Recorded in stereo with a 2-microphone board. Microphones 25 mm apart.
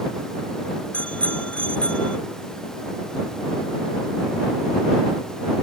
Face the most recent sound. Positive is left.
turn(degrees=50)  # may be behind; listen again after turning